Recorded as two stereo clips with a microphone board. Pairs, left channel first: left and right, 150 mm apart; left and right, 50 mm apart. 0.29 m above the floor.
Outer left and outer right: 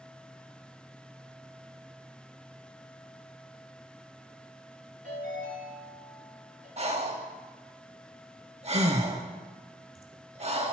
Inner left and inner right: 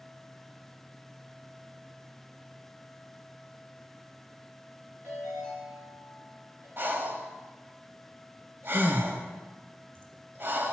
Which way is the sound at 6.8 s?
45° right (ahead or behind).